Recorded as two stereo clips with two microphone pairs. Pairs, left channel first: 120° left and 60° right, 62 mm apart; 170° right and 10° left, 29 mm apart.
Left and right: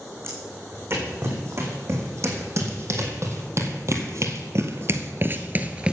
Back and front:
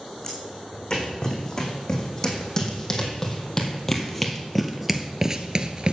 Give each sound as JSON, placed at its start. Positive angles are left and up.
{"t": 0.2, "sound": "footsteps", "azimuth_deg": -100, "distance_m": 6.0}